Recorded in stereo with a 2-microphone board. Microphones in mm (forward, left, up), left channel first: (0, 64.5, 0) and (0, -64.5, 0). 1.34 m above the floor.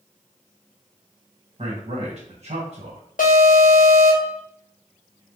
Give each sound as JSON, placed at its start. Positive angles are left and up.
{"t": 1.6, "sound": "a man speaking", "side_deg": -50, "distance_m": 1.2}
{"t": 3.2, "sound": "an alarm", "side_deg": 75, "distance_m": 0.6}